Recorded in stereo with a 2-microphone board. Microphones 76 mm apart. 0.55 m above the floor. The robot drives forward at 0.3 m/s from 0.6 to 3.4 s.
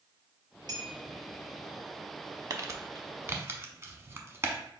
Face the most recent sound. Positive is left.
turn(degrees=-35)  # may be behind; listen again after turning